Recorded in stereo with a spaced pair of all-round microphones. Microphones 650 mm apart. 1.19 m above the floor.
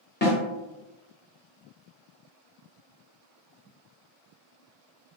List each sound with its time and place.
0.2 s a snare drum: 15° left (ahead or behind), 1.2 m